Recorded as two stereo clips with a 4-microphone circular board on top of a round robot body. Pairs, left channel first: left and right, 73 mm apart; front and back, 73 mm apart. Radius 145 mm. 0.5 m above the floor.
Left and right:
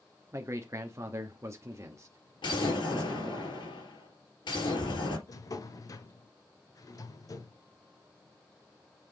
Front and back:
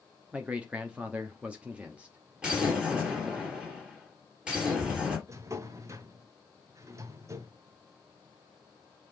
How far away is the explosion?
About 3.5 m.